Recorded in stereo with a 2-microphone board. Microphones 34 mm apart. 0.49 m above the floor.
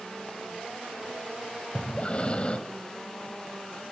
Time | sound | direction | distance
1.8 | breathing | 30° left (ahead or behind) | 1.4 m